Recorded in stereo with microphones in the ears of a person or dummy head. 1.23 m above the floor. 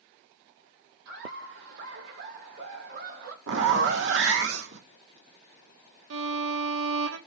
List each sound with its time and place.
1.1 s laughter: 65° right (ahead or behind), 6 m; by 3.4 s 60° right (ahead or behind), 2.5 m
3.5 s a zipper: 65° right (ahead or behind), 1.6 m
6.1 s a violin: 70° right (ahead or behind), 1.5 m